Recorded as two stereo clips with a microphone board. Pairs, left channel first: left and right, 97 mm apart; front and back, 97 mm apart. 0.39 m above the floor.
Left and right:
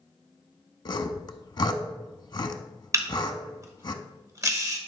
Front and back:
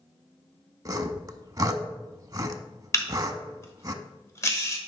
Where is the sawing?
130° left, 0.5 m.